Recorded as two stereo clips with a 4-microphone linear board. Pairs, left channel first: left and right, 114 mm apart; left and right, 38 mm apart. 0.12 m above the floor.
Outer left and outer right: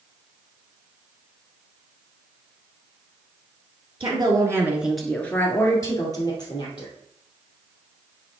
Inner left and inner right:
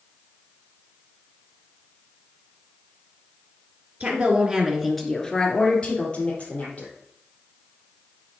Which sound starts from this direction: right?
A woman speaking, at 4.0 s.